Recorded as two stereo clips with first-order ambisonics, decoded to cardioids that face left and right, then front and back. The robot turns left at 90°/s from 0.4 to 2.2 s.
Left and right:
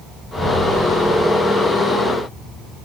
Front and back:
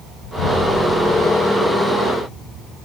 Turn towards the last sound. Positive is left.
turn(degrees=-175)